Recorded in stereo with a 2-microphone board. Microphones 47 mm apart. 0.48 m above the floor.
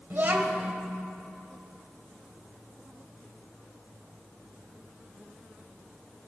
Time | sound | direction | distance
0.1 | a child speaking | 45° right (ahead or behind) | 1.5 m